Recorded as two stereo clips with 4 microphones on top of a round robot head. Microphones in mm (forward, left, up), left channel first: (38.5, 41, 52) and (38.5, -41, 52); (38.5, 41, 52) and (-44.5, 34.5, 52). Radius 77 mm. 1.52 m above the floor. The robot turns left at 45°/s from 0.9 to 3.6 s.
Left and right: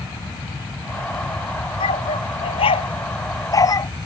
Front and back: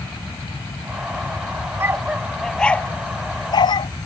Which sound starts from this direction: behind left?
A dog barking, at 1.8 s.